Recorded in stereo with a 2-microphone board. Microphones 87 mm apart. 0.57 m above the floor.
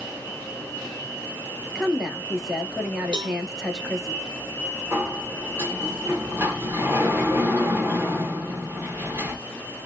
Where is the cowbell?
60° right (ahead or behind), 0.8 m.